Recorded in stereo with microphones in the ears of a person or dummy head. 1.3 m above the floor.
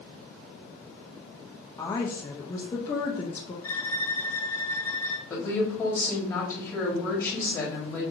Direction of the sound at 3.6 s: 20° left (ahead or behind).